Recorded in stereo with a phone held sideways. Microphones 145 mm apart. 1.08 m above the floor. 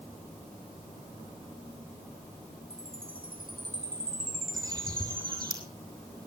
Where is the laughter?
I don't hear laughter.